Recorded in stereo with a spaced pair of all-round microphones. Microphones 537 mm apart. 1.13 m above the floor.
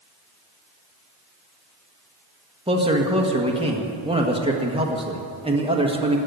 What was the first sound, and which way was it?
A man speaking, 10° right (ahead or behind).